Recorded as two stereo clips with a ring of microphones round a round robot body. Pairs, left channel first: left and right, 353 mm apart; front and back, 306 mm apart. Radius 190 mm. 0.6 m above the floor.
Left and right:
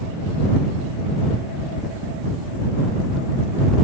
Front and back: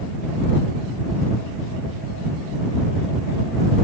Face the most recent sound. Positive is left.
No sound to turn to.